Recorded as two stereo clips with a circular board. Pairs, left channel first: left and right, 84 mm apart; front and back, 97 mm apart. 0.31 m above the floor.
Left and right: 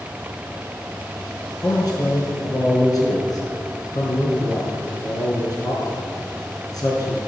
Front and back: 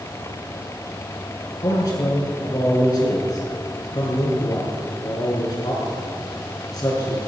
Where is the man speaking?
50° left, 5 m.